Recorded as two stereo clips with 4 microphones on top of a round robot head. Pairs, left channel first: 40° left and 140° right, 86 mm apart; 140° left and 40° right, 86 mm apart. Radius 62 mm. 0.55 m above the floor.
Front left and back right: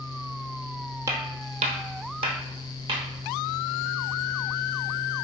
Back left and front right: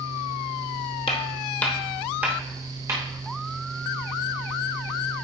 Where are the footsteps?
165° left, 0.9 m; by 3.0 s 95° right, 1.9 m.